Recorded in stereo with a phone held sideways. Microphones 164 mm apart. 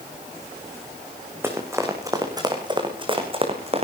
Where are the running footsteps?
15° right (ahead or behind), 5 m; by 3.9 s 40° right (ahead or behind), 4.5 m.